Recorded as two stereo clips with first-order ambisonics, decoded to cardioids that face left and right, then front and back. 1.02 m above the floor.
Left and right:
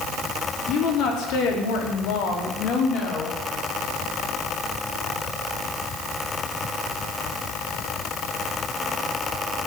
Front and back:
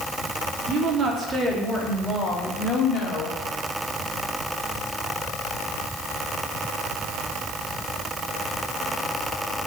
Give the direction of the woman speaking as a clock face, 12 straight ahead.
8 o'clock.